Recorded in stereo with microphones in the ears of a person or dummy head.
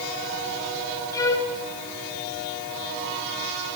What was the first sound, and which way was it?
A violin, 15° left (ahead or behind).